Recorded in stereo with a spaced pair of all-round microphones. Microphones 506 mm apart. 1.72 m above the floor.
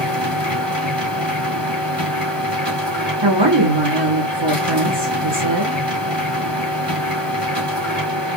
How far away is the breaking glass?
I don't hear breaking glass.